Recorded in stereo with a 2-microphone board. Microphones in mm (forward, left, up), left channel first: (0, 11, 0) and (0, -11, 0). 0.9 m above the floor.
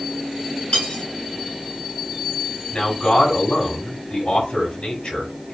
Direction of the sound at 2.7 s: 50° left (ahead or behind).